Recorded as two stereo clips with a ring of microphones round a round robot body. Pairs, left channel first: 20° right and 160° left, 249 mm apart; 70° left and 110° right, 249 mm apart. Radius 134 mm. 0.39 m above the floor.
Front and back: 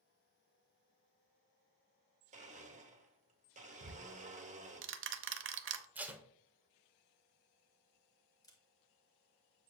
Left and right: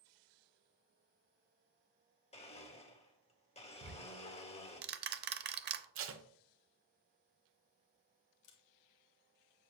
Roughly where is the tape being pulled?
Behind right.